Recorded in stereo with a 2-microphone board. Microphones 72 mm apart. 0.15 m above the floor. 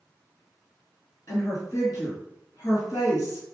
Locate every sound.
1.3 s a woman speaking: 45° left (ahead or behind), 1.8 m